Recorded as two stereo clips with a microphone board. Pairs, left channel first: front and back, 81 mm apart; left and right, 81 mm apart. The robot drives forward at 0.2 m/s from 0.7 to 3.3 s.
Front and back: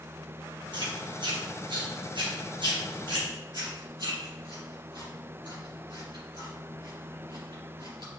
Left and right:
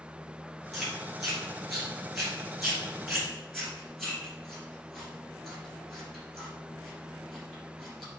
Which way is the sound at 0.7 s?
Straight behind.